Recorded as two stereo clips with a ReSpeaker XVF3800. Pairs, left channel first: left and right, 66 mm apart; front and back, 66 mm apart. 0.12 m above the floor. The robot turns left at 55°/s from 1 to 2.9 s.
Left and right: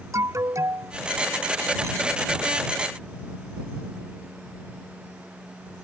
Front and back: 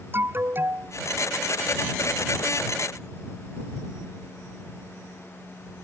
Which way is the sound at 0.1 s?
125° right.